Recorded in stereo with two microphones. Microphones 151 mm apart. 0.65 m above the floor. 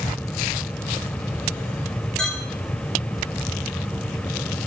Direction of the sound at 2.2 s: 5° left (ahead or behind).